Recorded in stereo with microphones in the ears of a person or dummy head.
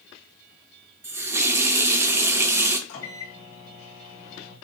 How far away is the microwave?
About 1.5 m.